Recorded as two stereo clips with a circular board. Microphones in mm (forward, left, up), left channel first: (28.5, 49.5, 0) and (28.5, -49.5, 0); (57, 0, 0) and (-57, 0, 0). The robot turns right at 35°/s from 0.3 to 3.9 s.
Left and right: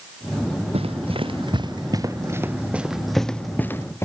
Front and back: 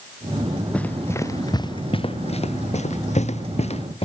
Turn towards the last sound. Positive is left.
turn(degrees=30)